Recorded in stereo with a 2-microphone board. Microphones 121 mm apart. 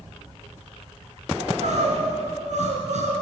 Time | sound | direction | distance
1.4 | crying | 80° right | 2.5 m